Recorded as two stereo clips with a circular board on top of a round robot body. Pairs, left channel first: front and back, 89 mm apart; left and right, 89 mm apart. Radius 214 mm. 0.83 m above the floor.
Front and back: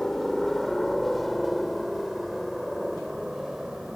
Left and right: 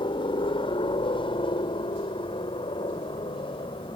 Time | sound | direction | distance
0.0 | a helicopter | 85° left | ?